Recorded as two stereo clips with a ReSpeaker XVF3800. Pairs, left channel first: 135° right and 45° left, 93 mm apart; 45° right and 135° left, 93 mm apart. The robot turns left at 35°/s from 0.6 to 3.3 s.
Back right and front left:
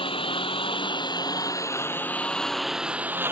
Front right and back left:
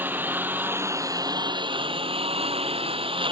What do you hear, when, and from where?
0.0 s a lawn mower: 155° right; by 3.3 s 110° left